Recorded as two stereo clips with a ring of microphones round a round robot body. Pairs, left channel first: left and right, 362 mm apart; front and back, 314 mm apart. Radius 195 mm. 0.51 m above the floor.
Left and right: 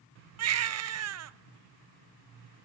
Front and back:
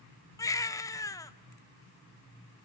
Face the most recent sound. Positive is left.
turn(degrees=-75)